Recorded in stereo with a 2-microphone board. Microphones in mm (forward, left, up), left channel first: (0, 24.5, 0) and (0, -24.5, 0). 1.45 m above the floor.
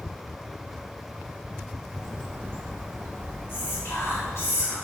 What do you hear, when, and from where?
1.9 s a bird: 50° right (ahead or behind), 1.0 m
3.5 s whispering: 55° left (ahead or behind), 3 m